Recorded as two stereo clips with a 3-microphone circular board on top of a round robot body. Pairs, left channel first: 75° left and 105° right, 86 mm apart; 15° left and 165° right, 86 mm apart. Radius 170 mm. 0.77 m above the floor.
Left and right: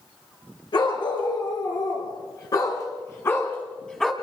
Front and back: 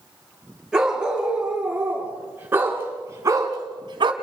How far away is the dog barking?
About 5.5 m.